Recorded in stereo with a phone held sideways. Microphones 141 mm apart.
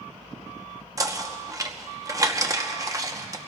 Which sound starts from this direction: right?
Knocking, at 1.0 s.